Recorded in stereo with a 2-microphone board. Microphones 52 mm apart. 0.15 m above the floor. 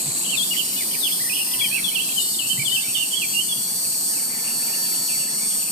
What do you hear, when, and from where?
0.0 s an insect: 10° left (ahead or behind), 2.5 m